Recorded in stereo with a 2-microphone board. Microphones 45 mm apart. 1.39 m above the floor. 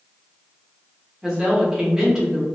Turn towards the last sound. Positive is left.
turn(degrees=-15)  # may be behind; listen again after turning